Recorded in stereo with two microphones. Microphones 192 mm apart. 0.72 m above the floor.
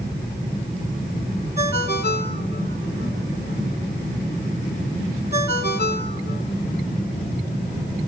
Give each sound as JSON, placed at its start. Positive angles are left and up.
{"t": 1.6, "sound": "a ringtone", "side_deg": 60, "distance_m": 3.5}